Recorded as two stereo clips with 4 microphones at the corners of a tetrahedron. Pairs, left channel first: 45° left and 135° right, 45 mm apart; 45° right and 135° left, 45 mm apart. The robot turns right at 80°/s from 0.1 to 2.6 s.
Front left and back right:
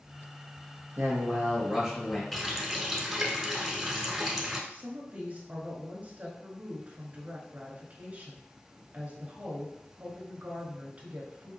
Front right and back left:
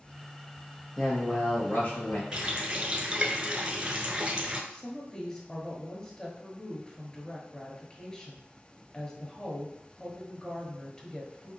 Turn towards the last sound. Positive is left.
turn(degrees=-105)